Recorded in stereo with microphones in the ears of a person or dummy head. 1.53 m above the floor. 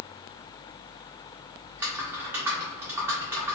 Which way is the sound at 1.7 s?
15° right (ahead or behind).